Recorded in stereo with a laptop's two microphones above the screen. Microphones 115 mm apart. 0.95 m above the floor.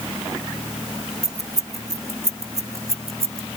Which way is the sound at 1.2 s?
85° right.